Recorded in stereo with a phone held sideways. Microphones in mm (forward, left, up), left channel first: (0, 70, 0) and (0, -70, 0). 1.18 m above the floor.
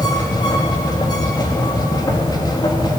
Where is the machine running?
30° left (ahead or behind), 2 m.